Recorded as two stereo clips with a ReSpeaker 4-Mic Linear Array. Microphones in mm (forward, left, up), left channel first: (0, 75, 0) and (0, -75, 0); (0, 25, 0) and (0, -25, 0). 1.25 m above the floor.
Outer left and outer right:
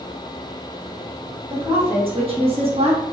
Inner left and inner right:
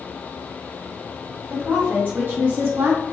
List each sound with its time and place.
1.5 s a woman speaking: 40° right (ahead or behind), 1.9 m